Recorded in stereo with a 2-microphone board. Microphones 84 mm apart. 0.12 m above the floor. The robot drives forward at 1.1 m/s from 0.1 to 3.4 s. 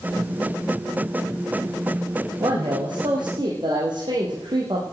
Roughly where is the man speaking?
Right.